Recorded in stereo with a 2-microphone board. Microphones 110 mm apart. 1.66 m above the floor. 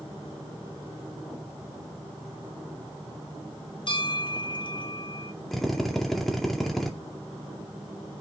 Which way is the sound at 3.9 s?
45° left (ahead or behind).